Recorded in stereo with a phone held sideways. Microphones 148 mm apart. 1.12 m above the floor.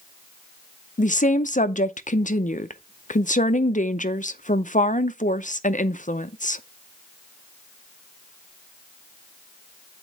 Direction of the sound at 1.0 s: 60° left (ahead or behind).